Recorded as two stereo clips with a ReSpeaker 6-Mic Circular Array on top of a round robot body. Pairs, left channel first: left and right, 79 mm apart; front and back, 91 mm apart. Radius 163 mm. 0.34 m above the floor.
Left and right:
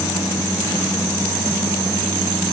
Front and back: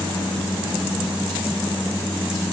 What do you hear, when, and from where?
Only background noise.